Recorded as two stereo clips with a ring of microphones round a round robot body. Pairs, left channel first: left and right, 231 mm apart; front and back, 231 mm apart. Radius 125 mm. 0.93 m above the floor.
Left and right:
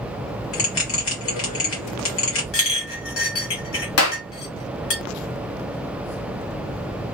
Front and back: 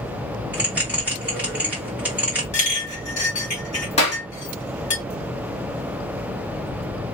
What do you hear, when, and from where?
0.5 s a bell: 95° left, 1.6 m
2.5 s a clink: 65° left, 1.6 m
4.0 s a clap: 65° left, 0.9 m